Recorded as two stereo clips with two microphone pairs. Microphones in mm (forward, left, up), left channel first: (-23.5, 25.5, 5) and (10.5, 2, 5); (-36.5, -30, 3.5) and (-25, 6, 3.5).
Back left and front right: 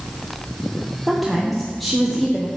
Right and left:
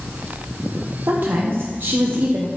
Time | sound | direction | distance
1.1 | a woman speaking | 60° left | 0.8 m